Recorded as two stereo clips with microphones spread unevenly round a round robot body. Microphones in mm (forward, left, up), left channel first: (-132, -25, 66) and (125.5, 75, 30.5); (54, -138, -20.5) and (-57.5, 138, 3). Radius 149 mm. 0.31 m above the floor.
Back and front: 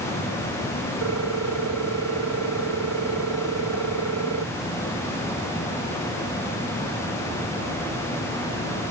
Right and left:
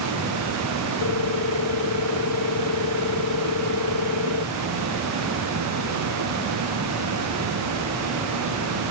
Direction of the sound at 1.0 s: 25° right.